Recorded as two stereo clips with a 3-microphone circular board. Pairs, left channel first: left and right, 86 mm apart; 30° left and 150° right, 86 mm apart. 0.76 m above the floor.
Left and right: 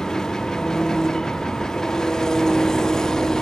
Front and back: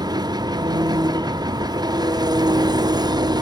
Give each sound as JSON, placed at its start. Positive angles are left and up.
{"t": 0.0, "sound": "an engine running", "azimuth_deg": 175, "distance_m": 0.7}